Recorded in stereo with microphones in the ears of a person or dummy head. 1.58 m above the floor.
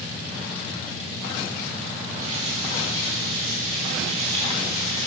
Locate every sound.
2.2 s a running tap: 35° right (ahead or behind), 3.5 m